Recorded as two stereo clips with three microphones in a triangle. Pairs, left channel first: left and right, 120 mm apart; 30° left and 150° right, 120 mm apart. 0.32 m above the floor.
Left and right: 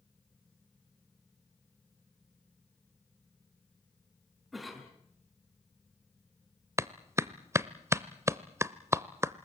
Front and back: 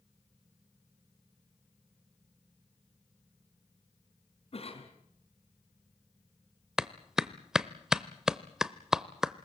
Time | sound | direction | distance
4.5 | a cough | straight ahead | 3.5 m
6.8 | a clap | 70° right | 0.7 m